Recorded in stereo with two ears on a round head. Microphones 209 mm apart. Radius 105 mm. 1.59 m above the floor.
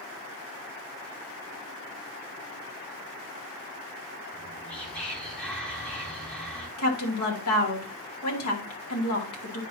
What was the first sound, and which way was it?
Whispering, 5° left (ahead or behind).